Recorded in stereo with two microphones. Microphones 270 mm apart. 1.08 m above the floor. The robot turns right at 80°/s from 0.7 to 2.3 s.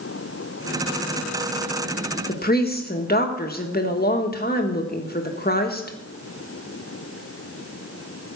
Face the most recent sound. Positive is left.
turn(degrees=35)  # may be behind; listen again after turning